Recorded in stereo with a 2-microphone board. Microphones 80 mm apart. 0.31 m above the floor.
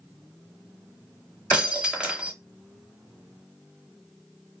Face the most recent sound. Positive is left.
turn(degrees=-15)  # may be behind; listen again after turning